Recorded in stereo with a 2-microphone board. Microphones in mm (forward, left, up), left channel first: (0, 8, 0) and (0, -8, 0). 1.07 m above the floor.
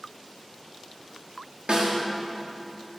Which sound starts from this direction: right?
A snare drum, at 1.7 s.